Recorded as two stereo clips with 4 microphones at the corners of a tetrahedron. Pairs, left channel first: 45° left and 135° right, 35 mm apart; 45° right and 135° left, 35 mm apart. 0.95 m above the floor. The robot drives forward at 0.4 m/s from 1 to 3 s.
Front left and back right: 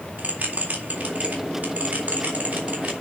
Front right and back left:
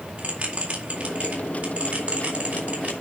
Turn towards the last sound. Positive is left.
turn(degrees=175)